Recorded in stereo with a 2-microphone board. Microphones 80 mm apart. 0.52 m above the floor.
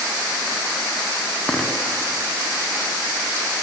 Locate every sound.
1.5 s a dropped coin: 10° left (ahead or behind), 1.9 m